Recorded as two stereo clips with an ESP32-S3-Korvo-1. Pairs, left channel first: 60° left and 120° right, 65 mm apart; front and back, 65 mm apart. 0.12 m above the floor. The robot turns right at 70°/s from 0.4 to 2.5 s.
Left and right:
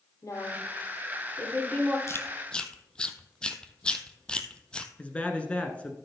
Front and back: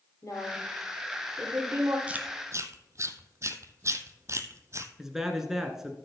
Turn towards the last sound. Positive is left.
turn(degrees=105)